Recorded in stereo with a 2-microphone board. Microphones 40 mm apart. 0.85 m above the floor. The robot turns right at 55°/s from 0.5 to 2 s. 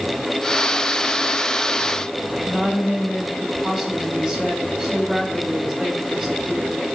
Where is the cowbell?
I don't hear a cowbell.